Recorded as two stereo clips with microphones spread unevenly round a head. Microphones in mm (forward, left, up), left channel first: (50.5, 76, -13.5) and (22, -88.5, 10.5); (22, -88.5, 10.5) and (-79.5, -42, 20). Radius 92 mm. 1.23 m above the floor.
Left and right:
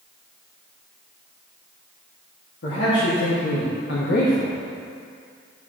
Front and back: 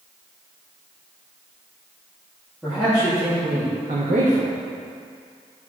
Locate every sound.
2.6 s a man speaking: 70° left, 2.5 m; by 4.6 s 145° left, 1.4 m